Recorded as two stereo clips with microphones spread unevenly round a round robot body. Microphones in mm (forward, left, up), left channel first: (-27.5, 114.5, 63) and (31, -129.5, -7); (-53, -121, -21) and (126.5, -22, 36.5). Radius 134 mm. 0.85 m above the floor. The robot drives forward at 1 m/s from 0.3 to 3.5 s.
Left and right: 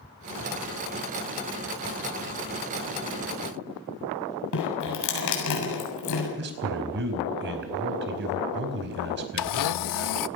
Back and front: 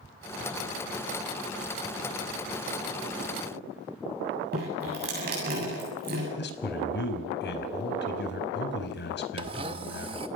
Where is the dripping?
85° left, 8 m.